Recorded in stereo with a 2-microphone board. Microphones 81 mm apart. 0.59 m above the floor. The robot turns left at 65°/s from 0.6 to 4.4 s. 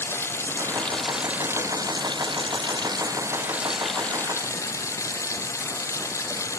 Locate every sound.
0.0 s running water: 30° left; by 6.6 s 145° left